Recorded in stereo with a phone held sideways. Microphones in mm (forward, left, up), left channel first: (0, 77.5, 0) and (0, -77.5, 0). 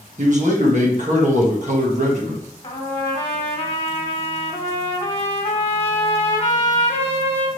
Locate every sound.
0.2 s a man speaking: 50° right (ahead or behind), 1.4 m
2.6 s a trumpet: 40° left (ahead or behind), 1.4 m